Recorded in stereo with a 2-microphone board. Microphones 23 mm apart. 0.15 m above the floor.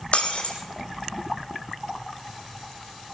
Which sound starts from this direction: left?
Breaking glass, at 0.1 s.